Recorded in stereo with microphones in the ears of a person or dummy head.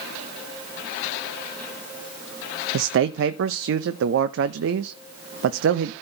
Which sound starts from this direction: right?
A man speaking, at 2.7 s.